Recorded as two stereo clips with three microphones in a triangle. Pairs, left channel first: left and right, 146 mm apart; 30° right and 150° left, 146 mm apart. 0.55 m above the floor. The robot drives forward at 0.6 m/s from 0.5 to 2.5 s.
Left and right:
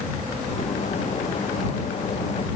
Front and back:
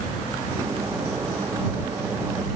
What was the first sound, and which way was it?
Only background noise.